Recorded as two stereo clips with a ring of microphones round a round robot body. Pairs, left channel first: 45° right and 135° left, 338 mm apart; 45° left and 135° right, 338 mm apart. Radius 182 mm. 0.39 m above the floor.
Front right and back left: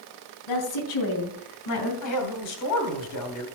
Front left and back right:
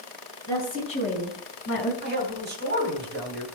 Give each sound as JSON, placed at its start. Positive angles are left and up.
{"t": 0.5, "sound": "a woman speaking", "azimuth_deg": -35, "distance_m": 3.5}
{"t": 2.0, "sound": "a man speaking", "azimuth_deg": -75, "distance_m": 3.0}